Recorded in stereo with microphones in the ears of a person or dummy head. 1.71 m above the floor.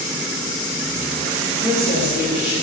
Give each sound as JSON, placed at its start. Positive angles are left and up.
{"t": 1.5, "sound": "a woman speaking", "side_deg": -50, "distance_m": 2.5}